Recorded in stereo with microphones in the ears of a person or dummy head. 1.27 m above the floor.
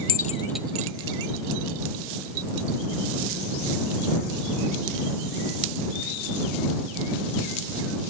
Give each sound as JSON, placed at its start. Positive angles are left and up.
{"t": 0.1, "sound": "keys jangling", "side_deg": 50}